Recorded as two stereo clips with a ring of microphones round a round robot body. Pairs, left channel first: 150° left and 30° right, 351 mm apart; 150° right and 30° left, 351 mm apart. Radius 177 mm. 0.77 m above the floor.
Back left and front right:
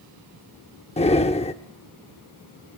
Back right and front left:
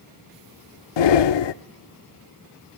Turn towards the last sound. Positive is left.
turn(degrees=-140)